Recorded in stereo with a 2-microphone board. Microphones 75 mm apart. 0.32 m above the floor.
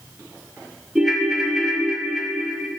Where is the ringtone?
10° right (ahead or behind), 0.7 m.